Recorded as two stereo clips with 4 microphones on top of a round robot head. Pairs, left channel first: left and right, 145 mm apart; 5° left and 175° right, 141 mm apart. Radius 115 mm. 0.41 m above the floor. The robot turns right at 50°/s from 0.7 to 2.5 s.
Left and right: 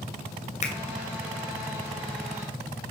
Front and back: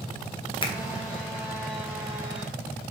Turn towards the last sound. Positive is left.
turn(degrees=145)